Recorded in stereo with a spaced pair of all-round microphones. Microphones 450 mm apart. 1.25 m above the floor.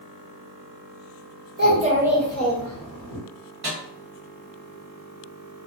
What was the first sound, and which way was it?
A child speaking, 25° right (ahead or behind).